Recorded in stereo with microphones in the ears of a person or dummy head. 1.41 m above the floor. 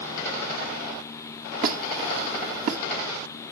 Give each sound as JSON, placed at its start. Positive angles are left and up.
{"t": 1.6, "sound": "a squeak", "side_deg": -55, "distance_m": 1.3}